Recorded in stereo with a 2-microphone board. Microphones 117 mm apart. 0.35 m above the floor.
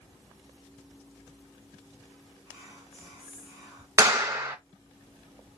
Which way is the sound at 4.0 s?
20° right (ahead or behind).